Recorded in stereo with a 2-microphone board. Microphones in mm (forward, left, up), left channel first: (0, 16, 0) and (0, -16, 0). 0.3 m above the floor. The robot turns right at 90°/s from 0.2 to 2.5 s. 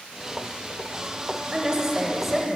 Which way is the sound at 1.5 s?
25° right (ahead or behind).